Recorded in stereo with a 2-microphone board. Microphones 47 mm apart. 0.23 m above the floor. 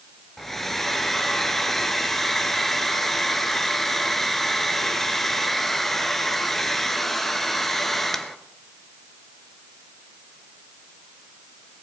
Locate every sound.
0.4 s a hair dryer: 5° left (ahead or behind), 1.2 m